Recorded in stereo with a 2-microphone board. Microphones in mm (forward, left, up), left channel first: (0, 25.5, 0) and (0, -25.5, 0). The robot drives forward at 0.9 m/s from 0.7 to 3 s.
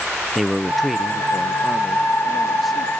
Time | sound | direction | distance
0.3 | a man speaking | centre (ahead or behind) | ?